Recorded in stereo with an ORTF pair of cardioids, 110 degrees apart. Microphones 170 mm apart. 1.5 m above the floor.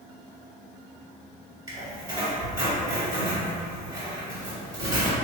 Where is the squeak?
20° right, 1.9 m.